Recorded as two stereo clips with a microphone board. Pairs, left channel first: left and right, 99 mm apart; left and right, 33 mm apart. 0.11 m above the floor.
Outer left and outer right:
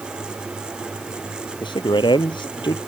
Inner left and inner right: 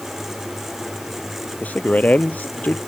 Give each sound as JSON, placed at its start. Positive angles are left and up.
{"t": 1.6, "sound": "a man speaking", "side_deg": 50}